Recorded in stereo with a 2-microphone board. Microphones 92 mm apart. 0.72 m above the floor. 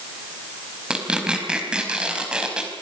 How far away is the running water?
No running water in this recording.